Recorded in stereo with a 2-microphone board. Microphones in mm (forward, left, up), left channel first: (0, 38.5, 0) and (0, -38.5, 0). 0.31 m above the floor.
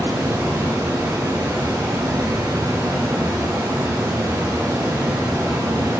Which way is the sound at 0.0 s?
50° right (ahead or behind).